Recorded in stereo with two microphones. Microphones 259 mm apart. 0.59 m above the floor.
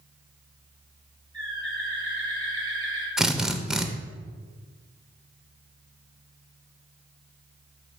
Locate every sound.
1.3 s a bird: 20° right (ahead or behind), 2.5 m
3.2 s a drill: centre (ahead or behind), 0.6 m